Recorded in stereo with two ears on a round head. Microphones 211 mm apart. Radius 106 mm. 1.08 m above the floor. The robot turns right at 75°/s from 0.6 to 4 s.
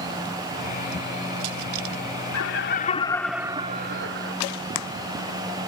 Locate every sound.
2.3 s laughter: 110° left; by 4.3 s 125° right